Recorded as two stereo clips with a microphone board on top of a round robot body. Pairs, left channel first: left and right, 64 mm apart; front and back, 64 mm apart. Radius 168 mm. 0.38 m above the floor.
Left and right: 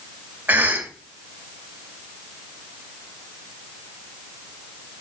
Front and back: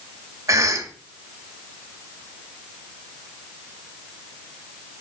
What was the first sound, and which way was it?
A cough, 150° right.